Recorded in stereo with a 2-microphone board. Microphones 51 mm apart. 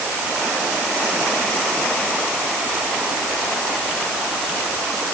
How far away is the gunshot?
I don't hear a gunshot.